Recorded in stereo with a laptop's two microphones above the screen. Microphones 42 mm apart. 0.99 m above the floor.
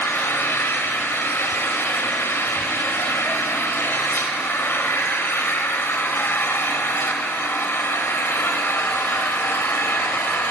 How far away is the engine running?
About 2.5 m.